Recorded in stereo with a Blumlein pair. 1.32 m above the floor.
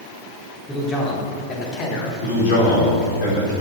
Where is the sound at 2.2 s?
50° left, 4 m.